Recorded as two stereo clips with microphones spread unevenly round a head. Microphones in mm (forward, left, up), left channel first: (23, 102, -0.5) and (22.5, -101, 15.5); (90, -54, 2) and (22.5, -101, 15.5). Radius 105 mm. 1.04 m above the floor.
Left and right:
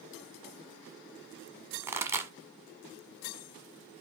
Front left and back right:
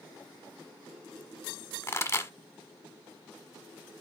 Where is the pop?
20° right, 1.3 m.